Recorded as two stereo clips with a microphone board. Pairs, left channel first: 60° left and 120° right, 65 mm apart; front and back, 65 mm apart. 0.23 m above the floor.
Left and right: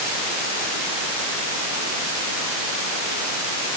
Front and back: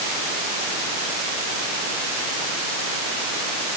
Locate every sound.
Only background noise.